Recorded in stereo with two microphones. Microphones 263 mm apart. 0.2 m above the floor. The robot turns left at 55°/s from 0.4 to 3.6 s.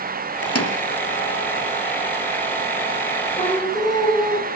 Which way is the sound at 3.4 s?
25° left (ahead or behind).